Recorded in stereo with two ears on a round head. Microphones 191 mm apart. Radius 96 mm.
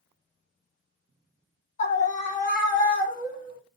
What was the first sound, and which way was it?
A scream, 35° left (ahead or behind).